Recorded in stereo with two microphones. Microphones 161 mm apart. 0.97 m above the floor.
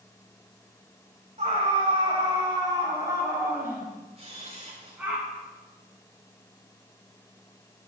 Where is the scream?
45° right (ahead or behind), 5 m; by 5.2 s 10° right (ahead or behind), 9.5 m.